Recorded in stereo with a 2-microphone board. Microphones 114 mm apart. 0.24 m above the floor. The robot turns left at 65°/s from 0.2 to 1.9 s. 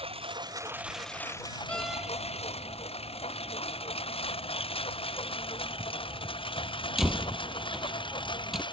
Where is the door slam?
10° left (ahead or behind); by 8.6 s centre (ahead or behind).